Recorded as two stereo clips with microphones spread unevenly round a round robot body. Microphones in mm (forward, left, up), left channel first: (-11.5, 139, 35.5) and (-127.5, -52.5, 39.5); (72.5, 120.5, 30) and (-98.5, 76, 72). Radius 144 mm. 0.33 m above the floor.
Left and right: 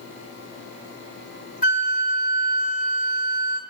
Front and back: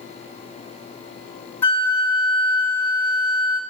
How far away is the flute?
About 1.5 m.